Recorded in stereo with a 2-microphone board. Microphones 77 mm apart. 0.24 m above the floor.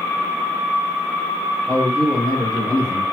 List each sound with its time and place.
1.7 s a man speaking: 50° left (ahead or behind), 3 m